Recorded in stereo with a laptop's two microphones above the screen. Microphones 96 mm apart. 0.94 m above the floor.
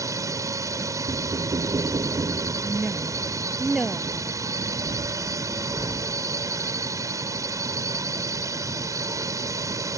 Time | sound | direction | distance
0.0 | a drone | 35° right (ahead or behind) | ?
1.1 | knocking | 45° right (ahead or behind) | ?
2.6 | a woman speaking | 5° right (ahead or behind) | ?